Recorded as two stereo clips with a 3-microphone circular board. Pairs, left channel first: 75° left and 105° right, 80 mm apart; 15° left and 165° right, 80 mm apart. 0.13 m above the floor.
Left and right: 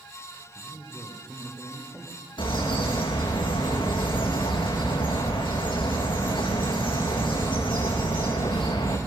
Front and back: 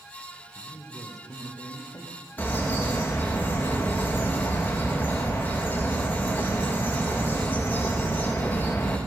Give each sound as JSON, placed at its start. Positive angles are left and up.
{"t": 0.6, "sound": "a man speaking", "azimuth_deg": -25, "distance_m": 5.0}
{"t": 2.4, "sound": "a bird", "azimuth_deg": 85, "distance_m": 5.0}